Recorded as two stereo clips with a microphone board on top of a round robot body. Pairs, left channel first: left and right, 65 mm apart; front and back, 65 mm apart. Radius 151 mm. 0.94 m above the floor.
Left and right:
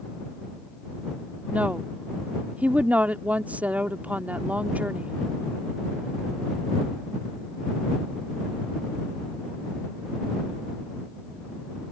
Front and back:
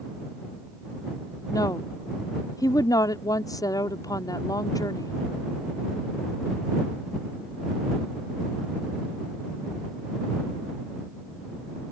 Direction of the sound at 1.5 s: 25° right.